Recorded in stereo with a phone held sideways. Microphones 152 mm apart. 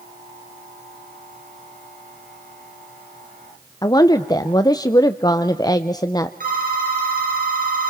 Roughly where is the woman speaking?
Left.